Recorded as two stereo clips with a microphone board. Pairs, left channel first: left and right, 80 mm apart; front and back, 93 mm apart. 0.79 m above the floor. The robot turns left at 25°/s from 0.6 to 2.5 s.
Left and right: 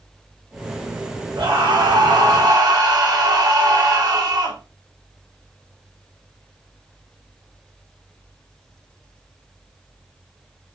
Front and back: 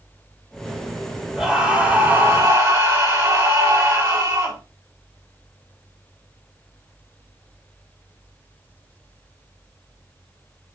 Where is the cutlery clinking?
No cutlery clinking in this recording.